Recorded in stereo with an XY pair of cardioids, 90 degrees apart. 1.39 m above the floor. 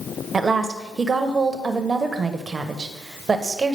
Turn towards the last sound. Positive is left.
turn(degrees=-40)